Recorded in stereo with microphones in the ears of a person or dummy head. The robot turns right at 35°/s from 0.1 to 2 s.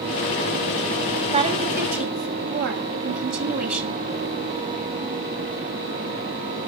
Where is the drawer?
No drawer in this recording.